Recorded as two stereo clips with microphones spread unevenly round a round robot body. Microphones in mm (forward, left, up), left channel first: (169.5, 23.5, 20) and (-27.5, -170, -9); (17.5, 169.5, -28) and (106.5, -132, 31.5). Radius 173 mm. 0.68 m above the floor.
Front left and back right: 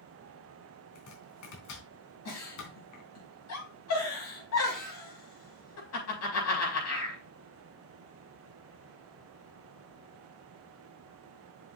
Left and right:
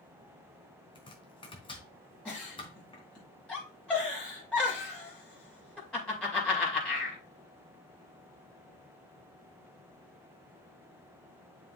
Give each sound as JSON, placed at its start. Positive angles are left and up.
{"t": 0.9, "sound": "chopping", "azimuth_deg": 30, "distance_m": 3.5}
{"t": 2.2, "sound": "a giggle", "azimuth_deg": 20, "distance_m": 5.5}